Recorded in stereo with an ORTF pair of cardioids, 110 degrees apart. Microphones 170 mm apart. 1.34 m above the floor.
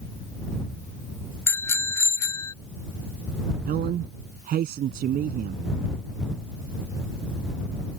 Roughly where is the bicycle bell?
Ahead.